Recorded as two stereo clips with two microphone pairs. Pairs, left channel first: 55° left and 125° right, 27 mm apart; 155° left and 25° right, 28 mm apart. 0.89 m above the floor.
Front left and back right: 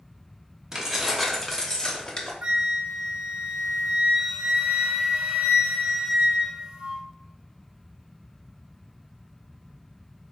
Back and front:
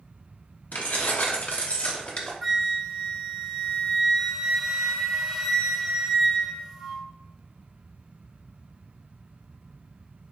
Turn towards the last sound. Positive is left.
turn(degrees=-120)